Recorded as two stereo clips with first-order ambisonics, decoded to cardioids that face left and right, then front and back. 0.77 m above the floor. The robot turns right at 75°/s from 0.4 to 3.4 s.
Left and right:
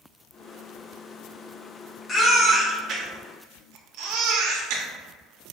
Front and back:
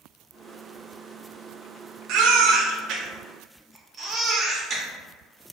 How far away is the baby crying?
About 0.6 m.